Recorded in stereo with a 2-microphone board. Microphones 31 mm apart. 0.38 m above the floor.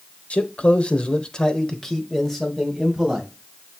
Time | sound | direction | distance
0.3 | a man speaking | 50° left (ahead or behind) | 1.2 m